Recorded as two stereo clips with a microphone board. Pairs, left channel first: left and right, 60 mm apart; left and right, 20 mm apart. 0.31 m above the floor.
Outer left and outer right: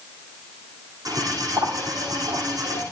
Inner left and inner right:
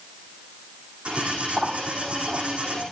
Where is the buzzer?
No buzzer in this recording.